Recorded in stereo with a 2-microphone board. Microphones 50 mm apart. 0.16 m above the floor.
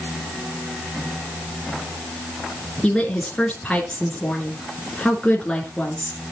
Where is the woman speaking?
15° left (ahead or behind), 2.5 m.